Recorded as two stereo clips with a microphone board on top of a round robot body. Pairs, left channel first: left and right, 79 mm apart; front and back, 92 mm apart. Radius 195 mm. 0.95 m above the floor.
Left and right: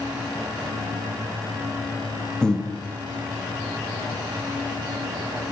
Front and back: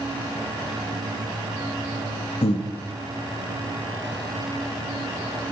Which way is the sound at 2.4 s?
10° left.